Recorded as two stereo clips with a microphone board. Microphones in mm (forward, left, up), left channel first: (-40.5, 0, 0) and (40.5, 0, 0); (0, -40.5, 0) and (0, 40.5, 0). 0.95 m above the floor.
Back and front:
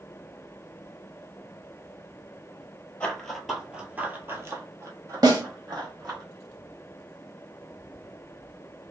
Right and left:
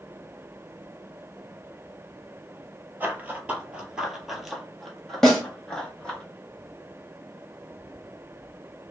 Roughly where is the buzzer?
I don't hear a buzzer.